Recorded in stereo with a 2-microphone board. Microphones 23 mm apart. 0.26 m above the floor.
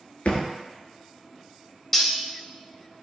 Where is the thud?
75° left (ahead or behind), 0.8 m.